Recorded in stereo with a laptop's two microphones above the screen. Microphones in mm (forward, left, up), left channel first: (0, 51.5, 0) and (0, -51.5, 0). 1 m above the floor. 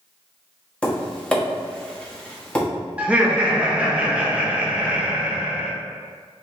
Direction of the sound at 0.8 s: 10° left (ahead or behind).